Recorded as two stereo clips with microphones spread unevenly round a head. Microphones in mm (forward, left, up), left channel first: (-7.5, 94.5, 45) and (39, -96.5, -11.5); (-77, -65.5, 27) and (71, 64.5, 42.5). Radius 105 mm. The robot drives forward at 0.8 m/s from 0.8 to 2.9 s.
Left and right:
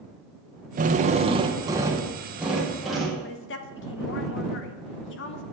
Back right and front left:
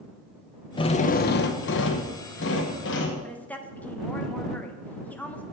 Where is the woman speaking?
140° left, 0.9 m.